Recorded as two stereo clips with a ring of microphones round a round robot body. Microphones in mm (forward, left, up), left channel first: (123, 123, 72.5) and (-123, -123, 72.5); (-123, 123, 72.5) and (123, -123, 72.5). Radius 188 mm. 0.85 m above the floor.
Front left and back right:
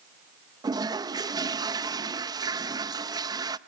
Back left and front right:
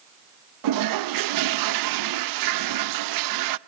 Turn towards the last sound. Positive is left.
turn(degrees=-55)